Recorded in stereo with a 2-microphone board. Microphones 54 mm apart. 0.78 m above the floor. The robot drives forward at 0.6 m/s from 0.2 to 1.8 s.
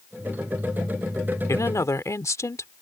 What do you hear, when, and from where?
1.5 s a woman speaking: 70° left (ahead or behind); by 2.7 s 65° left (ahead or behind)